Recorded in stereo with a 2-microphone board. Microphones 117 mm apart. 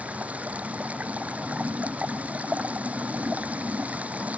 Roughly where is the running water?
Centre.